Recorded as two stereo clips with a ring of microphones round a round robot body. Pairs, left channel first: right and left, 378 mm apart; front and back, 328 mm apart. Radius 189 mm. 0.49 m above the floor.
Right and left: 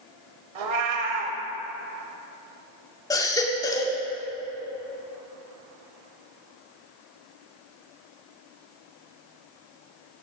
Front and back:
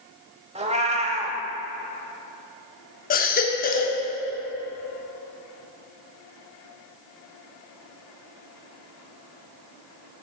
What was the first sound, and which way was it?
A cat meowing, 110° left.